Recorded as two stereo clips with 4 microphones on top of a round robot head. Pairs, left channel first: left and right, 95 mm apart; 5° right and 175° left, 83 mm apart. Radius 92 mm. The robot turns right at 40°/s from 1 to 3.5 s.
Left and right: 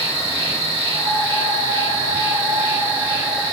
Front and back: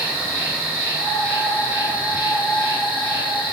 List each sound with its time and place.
0.0 s an insect: 95° right, 2.5 m; by 3.5 s 5° left, 2.5 m